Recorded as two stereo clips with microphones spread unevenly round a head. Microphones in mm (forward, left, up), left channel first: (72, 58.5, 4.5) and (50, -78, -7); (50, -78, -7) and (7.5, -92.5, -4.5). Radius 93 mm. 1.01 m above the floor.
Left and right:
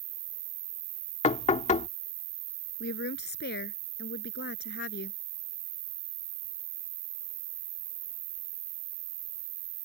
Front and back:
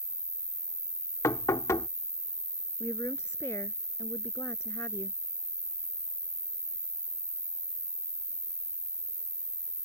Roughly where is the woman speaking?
Left.